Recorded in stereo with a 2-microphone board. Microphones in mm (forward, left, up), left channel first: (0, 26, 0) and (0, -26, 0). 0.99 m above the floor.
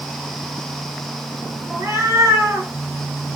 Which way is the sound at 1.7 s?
60° right (ahead or behind).